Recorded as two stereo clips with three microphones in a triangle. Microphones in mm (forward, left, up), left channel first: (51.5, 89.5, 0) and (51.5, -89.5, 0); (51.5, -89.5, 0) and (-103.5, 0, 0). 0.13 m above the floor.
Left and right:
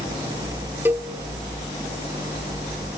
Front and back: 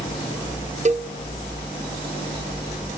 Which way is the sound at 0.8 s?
165° right.